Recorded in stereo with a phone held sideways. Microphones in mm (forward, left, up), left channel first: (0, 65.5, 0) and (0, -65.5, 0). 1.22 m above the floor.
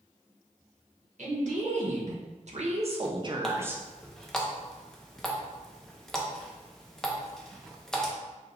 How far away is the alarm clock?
No alarm clock in this recording.